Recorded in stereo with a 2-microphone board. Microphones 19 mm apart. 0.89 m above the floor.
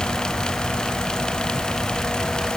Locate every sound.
Only background noise.